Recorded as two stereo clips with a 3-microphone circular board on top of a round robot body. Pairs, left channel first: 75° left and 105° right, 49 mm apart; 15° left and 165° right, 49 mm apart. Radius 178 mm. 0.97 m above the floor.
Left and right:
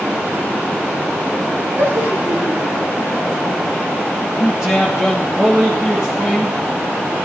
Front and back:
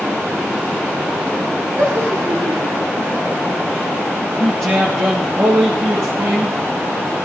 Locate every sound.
1.8 s laughter: 140° right, 3 m; by 3.6 s straight behind, 2 m
4.4 s a man speaking: 175° left, 2.5 m